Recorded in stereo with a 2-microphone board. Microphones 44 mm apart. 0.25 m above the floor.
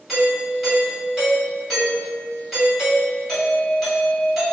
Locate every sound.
0.1 s a doorbell: centre (ahead or behind), 1.7 m